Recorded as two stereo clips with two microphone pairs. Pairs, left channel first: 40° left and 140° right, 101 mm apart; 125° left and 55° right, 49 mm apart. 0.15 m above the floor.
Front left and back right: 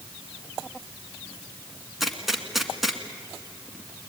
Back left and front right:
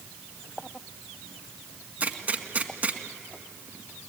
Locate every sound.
2.0 s a gunshot: 50° right, 1.6 m